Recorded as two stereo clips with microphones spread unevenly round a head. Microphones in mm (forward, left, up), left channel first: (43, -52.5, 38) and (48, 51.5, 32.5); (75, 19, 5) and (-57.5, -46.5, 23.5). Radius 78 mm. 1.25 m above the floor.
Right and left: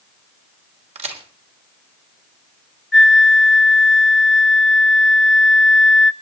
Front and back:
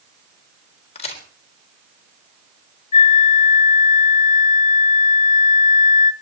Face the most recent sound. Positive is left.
turn(degrees=-5)